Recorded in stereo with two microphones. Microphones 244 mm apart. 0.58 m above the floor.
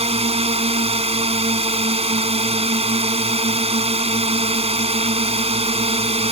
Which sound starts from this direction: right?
A drone, at 0.0 s.